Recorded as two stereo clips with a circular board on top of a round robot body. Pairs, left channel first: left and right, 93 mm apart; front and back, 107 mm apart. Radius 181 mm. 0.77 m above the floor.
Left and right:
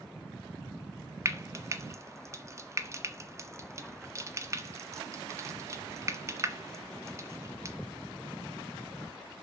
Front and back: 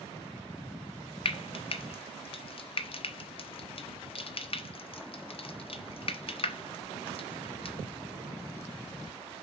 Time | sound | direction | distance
1.2 | frying | 30° right | 1.5 m